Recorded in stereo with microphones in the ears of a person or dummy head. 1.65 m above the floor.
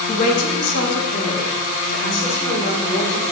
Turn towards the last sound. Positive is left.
turn(degrees=80)